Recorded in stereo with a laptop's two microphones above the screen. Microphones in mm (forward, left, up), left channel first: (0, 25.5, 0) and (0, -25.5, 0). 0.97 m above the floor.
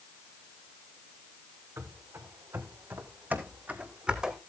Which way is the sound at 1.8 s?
70° right (ahead or behind).